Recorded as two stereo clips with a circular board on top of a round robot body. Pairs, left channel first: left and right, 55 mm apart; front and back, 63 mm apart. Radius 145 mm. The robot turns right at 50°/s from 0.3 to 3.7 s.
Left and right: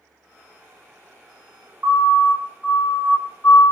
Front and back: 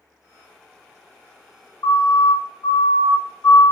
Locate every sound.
1.8 s a siren: 35° right, 3.5 m; by 3.7 s 65° left, 2.5 m